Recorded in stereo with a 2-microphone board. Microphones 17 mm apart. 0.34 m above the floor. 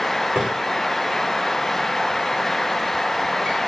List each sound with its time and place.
0.3 s a drawer: 75° right (ahead or behind), 5.5 m